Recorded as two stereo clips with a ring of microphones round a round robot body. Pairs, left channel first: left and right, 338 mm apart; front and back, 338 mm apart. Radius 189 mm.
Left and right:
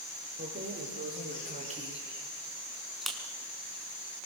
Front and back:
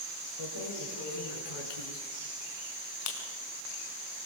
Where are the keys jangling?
35° right, 6.5 m; by 3.2 s straight ahead, 4.5 m.